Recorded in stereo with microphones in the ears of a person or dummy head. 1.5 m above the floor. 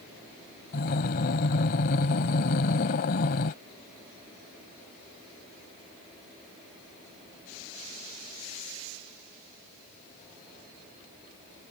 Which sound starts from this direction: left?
Breathing, at 0.7 s.